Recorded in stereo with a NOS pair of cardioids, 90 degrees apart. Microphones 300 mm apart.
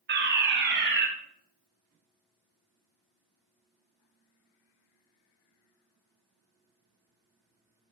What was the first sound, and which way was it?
A fire alarm, 40° right.